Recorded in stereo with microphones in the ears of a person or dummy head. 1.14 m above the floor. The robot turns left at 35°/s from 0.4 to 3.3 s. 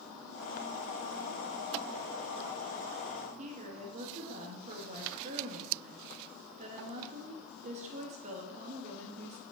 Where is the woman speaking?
35° right (ahead or behind), 2 m.